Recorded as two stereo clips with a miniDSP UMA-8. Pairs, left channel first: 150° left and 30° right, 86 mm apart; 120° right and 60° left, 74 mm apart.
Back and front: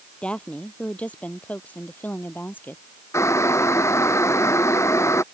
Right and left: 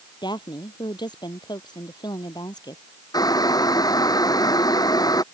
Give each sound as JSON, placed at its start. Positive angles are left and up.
{"t": 0.2, "sound": "a woman speaking", "azimuth_deg": -130}
{"t": 3.1, "sound": "boiling", "azimuth_deg": -155}